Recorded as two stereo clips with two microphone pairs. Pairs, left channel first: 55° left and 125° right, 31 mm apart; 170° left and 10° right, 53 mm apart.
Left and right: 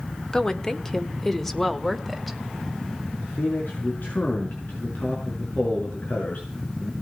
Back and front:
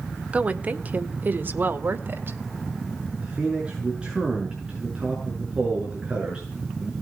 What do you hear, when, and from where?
0.3 s a woman speaking: 25° left, 1.4 m; by 2.4 s 30° right, 1.8 m
3.2 s a man speaking: 65° left, 6 m